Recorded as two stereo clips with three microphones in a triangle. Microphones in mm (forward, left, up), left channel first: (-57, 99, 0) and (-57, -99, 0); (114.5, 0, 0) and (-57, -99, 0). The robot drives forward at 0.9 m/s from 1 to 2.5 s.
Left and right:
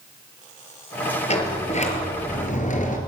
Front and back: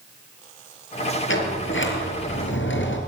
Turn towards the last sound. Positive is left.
turn(degrees=40)